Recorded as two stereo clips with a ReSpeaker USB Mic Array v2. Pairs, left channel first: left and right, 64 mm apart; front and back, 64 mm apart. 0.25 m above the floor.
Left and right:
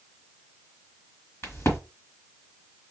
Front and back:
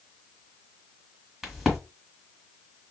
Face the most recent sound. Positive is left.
turn(degrees=100)